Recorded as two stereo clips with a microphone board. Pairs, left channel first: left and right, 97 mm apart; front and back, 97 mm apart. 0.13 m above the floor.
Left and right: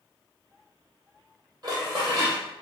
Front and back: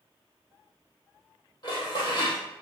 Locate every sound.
1.6 s dishes clattering: 45° right, 3.5 m